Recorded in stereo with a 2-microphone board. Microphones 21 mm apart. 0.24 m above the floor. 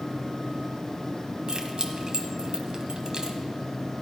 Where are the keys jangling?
35° right (ahead or behind), 1.1 m.